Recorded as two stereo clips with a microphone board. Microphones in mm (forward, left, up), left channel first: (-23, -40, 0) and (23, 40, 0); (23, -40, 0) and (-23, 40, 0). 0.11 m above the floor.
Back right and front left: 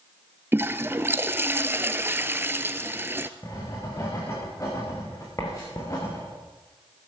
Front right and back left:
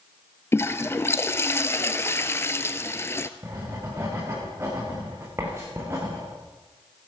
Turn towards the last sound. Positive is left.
turn(degrees=-175)